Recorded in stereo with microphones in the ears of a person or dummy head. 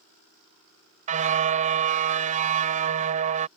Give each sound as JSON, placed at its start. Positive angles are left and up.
{"t": 1.1, "sound": "a car horn", "side_deg": -45}